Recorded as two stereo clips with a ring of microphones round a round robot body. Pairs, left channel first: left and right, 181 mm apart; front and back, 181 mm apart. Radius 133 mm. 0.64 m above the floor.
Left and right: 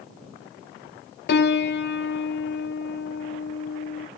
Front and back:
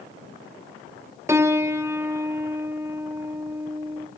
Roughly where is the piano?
Left.